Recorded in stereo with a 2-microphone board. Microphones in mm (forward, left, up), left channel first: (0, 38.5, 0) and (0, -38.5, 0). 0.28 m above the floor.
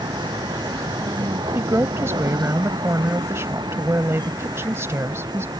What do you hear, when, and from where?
0.0 s a vehicle: 75° right (ahead or behind); by 5.6 s 65° right (ahead or behind)
1.6 s a woman speaking: 35° right (ahead or behind)